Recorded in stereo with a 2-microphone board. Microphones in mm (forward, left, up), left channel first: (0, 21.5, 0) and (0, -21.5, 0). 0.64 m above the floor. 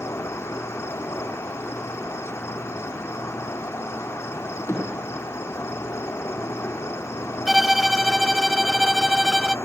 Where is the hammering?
85° left, 7.5 m.